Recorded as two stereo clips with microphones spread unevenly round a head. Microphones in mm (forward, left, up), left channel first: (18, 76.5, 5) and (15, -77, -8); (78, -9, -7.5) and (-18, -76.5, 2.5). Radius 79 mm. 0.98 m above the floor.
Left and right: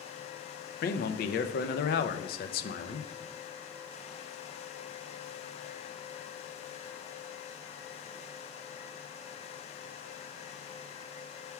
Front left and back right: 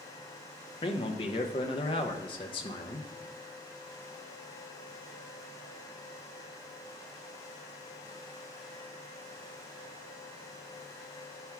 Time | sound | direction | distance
0.8 | a man speaking | 75° left | 0.6 m